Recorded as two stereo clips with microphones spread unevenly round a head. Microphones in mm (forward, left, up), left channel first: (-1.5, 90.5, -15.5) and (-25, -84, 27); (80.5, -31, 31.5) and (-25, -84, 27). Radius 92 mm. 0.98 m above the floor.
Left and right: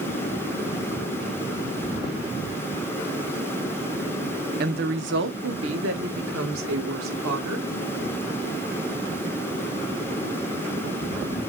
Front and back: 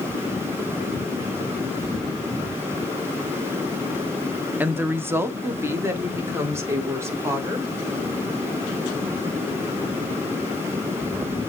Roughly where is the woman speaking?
Right.